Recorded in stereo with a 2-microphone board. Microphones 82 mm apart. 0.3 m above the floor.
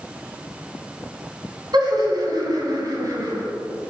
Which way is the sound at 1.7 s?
60° right (ahead or behind).